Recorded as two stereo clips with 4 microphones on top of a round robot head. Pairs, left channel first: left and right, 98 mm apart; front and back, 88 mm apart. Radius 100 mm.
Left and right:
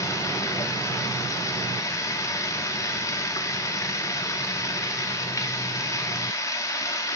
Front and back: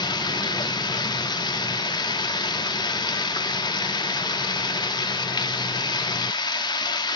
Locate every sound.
0.0 s running water: 30° left, 2.5 m